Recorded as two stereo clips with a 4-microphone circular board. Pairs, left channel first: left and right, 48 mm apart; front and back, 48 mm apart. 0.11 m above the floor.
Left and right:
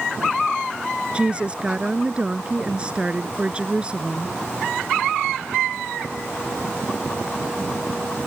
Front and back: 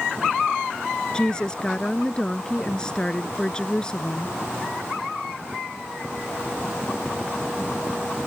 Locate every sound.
1.1 s a woman speaking: 50° right